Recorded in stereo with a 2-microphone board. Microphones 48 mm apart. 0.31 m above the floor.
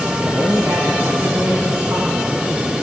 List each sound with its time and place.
0.2 s a man speaking: 65° right (ahead or behind), 3.5 m; by 2.7 s 70° right (ahead or behind), 4 m